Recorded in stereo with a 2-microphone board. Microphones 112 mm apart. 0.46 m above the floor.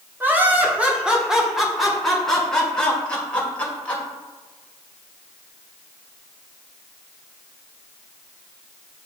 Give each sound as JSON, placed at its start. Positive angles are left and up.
{"t": 0.2, "sound": "laughter", "side_deg": -20, "distance_m": 1.2}